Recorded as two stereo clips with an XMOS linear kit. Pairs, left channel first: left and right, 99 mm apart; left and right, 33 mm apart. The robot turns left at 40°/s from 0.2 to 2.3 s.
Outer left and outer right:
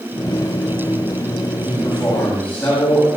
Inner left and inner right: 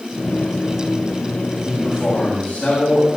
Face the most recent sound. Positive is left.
turn(degrees=20)  # may be behind; listen again after turning